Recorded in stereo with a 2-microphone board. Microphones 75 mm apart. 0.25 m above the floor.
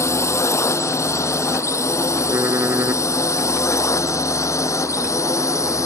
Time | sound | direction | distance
0.0 | a drone | 40° left (ahead or behind) | ?
2.3 | typing on a keyboard | 30° right (ahead or behind) | ?